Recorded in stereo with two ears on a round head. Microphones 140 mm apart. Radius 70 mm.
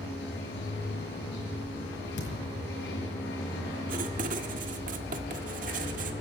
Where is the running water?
85° left, 7.5 m.